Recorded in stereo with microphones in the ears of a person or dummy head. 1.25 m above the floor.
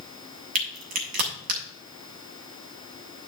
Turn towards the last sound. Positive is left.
turn(degrees=-50)  # may be behind; listen again after turning